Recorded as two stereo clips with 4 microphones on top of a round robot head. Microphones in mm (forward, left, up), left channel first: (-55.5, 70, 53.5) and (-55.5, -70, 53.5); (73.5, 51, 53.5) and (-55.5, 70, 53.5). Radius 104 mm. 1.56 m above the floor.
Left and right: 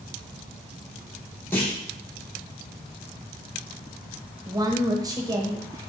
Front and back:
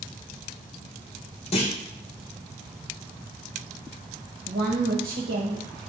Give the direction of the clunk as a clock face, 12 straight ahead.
12 o'clock.